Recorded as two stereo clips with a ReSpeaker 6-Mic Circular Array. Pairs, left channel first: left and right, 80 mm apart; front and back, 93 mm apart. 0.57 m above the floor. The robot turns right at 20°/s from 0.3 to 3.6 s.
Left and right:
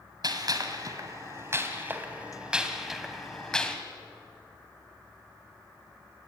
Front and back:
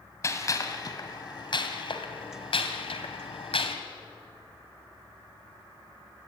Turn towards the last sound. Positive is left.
turn(degrees=10)